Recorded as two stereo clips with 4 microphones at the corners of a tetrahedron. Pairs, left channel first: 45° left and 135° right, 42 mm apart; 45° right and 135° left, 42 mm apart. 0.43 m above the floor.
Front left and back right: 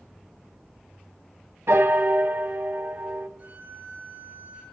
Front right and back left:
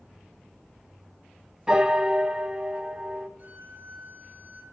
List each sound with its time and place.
1.7 s a piano: 150° right, 1.7 m
3.4 s a violin: 175° right, 7 m